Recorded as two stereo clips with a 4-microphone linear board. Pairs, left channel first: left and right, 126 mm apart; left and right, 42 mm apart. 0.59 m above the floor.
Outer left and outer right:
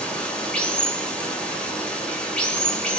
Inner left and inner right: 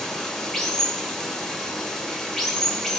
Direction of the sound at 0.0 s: 10° left (ahead or behind).